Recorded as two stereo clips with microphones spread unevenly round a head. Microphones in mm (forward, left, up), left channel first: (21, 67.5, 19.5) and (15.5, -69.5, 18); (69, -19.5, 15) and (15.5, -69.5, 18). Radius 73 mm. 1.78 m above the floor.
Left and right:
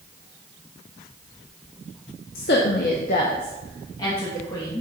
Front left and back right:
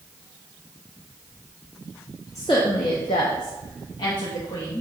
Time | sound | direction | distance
2.4 | a woman speaking | 115° left | 0.7 m